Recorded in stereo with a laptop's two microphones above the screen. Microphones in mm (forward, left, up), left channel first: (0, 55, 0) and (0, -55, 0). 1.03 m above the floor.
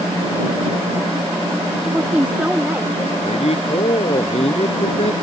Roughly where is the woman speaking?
Centre.